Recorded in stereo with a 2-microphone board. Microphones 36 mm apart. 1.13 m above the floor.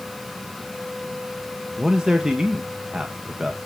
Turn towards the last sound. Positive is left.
turn(degrees=-20)  # may be behind; listen again after turning